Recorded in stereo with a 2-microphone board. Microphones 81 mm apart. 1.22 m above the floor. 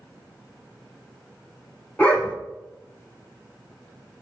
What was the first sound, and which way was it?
A dog barking, 20° left (ahead or behind).